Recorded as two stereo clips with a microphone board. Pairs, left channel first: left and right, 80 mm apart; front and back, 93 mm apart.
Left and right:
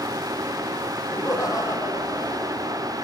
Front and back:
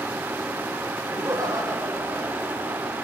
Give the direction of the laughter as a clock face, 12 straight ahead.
8 o'clock.